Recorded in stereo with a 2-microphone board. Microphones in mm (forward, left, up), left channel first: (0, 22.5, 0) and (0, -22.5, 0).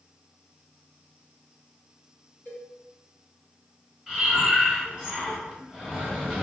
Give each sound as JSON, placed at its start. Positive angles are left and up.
{"t": 2.5, "sound": "a cowbell", "side_deg": 40, "distance_m": 1.9}
{"t": 4.1, "sound": "breathing", "side_deg": -10, "distance_m": 0.9}